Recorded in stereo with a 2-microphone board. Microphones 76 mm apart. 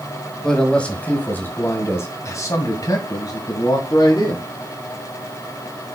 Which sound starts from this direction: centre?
A man speaking, at 0.4 s.